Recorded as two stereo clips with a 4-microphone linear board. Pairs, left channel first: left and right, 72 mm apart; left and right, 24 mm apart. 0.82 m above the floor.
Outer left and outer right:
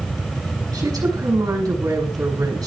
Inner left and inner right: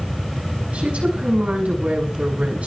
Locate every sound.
0.7 s a woman speaking: 55° right (ahead or behind), 6 m